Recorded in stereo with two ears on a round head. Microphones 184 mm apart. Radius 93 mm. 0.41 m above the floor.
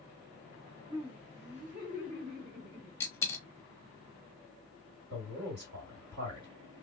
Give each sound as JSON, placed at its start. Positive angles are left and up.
{"t": 0.9, "sound": "laughter", "side_deg": -20, "distance_m": 1.0}
{"t": 3.0, "sound": "a dropped coin", "side_deg": 10, "distance_m": 0.6}
{"t": 5.1, "sound": "a man speaking", "side_deg": -55, "distance_m": 2.5}